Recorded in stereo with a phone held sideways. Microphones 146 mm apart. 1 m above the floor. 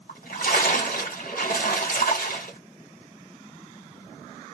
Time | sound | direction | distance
0.1 | a splash | 80° left | 1.6 m